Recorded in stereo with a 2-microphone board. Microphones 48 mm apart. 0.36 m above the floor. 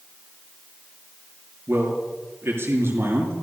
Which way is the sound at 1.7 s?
55° right (ahead or behind).